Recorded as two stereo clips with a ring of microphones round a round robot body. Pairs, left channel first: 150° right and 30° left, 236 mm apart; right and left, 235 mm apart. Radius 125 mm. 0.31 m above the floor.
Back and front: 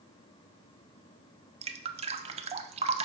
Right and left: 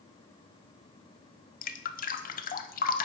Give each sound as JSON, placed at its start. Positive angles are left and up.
{"t": 1.6, "sound": "dripping", "azimuth_deg": -35, "distance_m": 0.5}